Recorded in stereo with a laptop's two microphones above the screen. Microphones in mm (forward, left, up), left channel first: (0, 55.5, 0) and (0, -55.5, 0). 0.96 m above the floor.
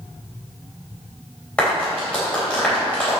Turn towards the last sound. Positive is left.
turn(degrees=10)  # may be behind; listen again after turning